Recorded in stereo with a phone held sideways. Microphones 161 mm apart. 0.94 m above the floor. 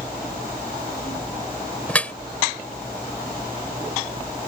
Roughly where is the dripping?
Centre.